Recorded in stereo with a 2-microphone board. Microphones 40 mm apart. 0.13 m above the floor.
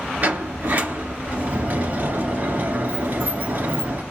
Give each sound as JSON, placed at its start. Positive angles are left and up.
{"t": 0.2, "sound": "a sliding door", "side_deg": -45, "distance_m": 2.0}